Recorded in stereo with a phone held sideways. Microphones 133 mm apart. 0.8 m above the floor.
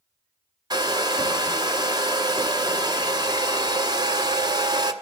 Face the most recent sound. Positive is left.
turn(degrees=-30)  # may be behind; listen again after turning